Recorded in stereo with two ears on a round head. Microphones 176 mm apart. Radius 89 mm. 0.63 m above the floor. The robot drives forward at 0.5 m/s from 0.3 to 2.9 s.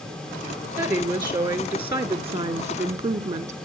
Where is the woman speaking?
10° right (ahead or behind), 2 m; by 3.6 s 15° right (ahead or behind), 1.0 m.